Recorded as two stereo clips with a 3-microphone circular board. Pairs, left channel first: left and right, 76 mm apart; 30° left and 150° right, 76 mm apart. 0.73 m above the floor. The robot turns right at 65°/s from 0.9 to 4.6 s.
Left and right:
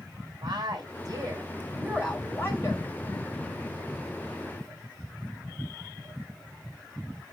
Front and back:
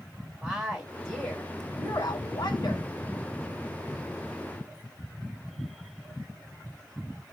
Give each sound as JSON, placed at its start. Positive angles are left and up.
{"t": 0.4, "sound": "a woman speaking", "azimuth_deg": -65, "distance_m": 2.5}